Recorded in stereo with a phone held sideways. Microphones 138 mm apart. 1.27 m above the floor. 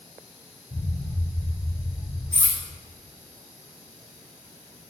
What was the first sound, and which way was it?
An explosion, 65° left (ahead or behind).